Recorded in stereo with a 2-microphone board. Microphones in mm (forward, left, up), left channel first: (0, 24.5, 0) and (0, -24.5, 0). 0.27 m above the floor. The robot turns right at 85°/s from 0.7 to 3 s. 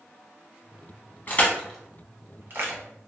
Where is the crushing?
40° left (ahead or behind), 0.9 m; by 2.8 s 65° right (ahead or behind), 0.9 m.